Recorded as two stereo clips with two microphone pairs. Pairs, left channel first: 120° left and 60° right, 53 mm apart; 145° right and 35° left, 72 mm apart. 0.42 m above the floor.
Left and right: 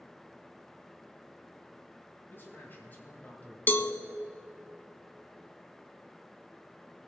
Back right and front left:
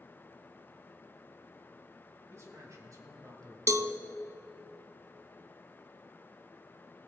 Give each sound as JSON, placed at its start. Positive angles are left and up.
{"t": 2.3, "sound": "a man speaking", "azimuth_deg": 80, "distance_m": 2.5}
{"t": 3.7, "sound": "a cowbell", "azimuth_deg": 70, "distance_m": 0.6}